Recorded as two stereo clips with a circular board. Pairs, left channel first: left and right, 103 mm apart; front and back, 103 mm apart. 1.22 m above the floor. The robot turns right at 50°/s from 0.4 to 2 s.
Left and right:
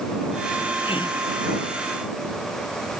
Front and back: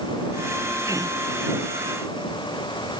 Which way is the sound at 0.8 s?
115° left.